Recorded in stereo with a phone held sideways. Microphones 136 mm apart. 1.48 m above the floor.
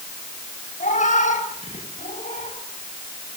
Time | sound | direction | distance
0.8 | a cat meowing | 65° left (ahead or behind) | 5 m